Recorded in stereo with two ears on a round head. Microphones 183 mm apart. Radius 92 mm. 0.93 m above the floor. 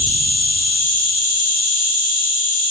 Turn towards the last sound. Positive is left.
turn(degrees=40)  # may be behind; listen again after turning